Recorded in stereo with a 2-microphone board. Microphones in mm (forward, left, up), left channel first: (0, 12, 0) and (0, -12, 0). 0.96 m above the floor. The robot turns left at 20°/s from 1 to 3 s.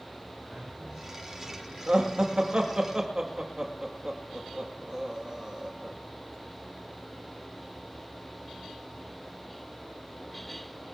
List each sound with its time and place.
0.5 s a man speaking: 40° right (ahead or behind), 5.5 m; by 2.1 s 20° right (ahead or behind), 5.5 m
1.9 s laughter: 50° right (ahead or behind), 2.0 m; by 6.0 s 30° right (ahead or behind), 2.0 m